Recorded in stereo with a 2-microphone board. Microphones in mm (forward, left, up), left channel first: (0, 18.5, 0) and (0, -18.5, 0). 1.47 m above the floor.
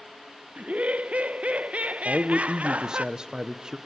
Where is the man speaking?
20° right (ahead or behind), 1.1 m.